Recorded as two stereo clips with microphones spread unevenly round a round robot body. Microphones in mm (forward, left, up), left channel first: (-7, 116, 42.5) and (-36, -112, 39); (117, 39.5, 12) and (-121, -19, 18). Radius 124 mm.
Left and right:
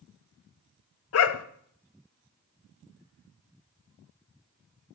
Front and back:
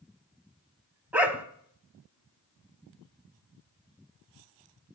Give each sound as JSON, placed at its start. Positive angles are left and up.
{"t": 1.1, "sound": "a dog barking", "azimuth_deg": 110, "distance_m": 0.7}